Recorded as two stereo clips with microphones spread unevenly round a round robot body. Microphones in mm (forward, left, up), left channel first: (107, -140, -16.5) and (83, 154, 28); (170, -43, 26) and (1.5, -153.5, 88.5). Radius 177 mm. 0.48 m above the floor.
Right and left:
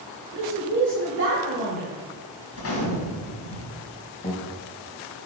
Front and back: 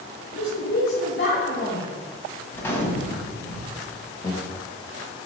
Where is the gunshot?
45° right, 1.8 m.